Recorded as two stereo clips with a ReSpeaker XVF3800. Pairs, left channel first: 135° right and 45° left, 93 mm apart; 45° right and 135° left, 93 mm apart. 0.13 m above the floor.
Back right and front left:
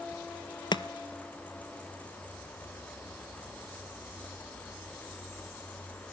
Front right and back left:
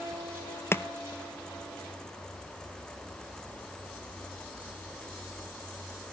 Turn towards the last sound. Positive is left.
turn(degrees=-105)